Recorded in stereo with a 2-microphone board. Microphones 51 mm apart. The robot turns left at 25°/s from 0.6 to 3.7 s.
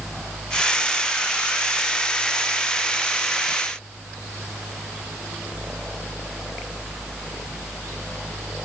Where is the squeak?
No squeak in this recording.